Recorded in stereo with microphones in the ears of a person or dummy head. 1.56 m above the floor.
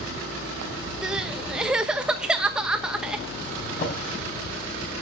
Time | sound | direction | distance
1.0 | crying | 5° right (ahead or behind) | 1.1 m
3.6 | a drawer | 45° left (ahead or behind) | 4 m